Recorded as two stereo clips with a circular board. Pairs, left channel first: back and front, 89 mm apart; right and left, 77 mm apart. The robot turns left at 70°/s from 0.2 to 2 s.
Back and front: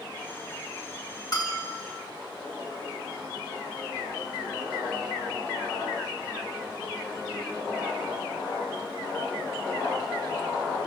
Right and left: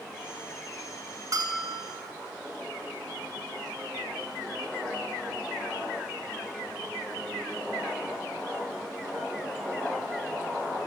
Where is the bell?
135° left, 4 m; by 1.9 s 90° left, 4 m.